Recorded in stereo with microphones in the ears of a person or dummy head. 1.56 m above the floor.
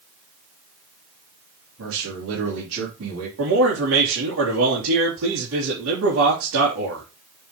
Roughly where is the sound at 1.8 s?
Right.